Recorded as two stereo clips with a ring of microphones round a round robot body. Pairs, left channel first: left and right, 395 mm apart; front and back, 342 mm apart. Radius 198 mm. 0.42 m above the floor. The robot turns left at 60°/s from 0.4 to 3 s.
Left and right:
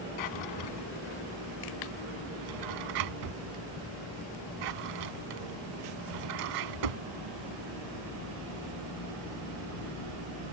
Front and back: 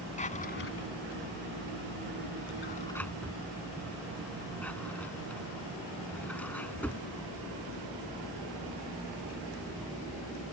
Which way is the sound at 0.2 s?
70° left.